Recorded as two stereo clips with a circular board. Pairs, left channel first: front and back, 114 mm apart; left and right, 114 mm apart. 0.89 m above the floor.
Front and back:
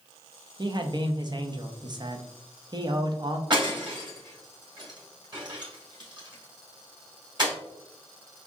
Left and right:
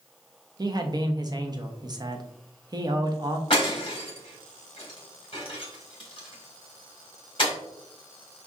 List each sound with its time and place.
0.6 s a man speaking: 135° right, 0.7 m
3.5 s breaking glass: 130° left, 2 m